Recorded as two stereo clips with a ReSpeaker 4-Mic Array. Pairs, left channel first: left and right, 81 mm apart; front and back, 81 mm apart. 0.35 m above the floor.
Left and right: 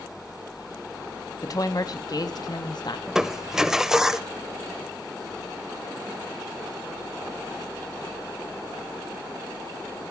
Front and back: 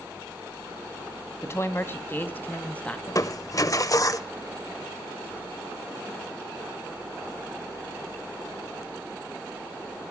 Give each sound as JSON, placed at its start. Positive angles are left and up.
{"t": 1.4, "sound": "a woman speaking", "azimuth_deg": 55, "distance_m": 2.5}
{"t": 3.1, "sound": "crushing", "azimuth_deg": -10, "distance_m": 1.0}